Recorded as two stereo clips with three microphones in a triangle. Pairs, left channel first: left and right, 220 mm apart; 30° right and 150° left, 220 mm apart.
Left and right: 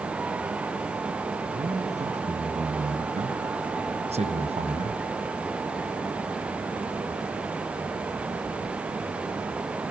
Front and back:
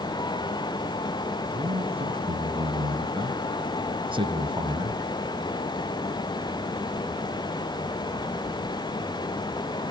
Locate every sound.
1.5 s a man speaking: 145° right, 4.5 m